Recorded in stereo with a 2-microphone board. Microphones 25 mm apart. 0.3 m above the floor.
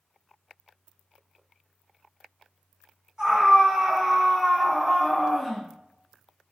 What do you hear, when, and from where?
3.2 s a scream: 20° right (ahead or behind), 1.9 m; by 6.5 s 30° left (ahead or behind), 1.6 m